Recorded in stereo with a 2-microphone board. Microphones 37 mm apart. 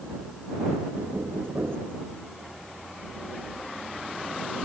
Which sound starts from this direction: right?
Knocking, at 0.9 s.